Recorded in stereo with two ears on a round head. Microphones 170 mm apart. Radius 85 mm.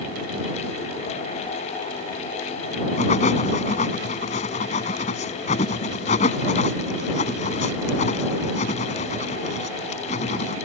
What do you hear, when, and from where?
3.0 s writing: 40° left (ahead or behind)